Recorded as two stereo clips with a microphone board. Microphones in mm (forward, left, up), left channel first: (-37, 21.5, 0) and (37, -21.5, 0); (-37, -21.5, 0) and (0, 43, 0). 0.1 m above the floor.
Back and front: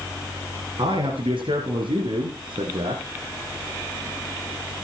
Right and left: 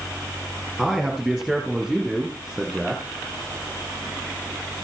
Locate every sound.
0.8 s a man speaking: 35° right, 5 m; by 3.0 s 30° right, 3.5 m